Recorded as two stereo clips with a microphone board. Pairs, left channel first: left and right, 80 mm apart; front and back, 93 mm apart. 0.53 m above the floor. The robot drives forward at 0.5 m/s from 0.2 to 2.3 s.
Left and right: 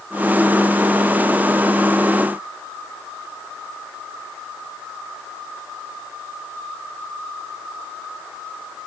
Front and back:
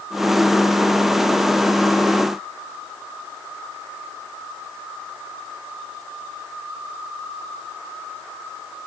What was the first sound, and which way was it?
Only background noise.